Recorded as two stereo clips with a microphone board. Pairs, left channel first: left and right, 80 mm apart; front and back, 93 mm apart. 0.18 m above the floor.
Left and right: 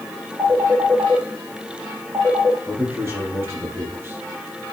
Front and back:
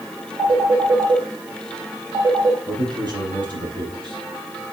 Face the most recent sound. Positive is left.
turn(degrees=-145)